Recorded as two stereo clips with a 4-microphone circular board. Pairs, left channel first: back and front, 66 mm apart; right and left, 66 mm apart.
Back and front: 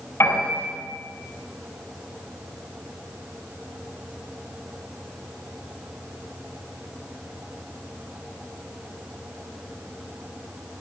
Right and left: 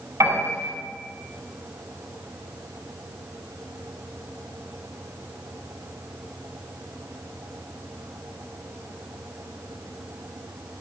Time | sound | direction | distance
0.2 | a piano | 130° left | 7.5 m